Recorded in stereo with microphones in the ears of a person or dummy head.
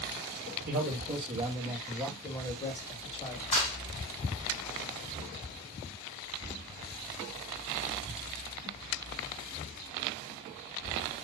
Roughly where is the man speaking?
Right.